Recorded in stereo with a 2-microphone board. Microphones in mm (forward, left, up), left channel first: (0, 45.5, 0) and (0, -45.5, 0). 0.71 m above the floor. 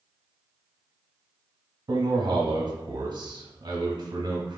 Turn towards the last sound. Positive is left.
turn(degrees=-50)  # may be behind; listen again after turning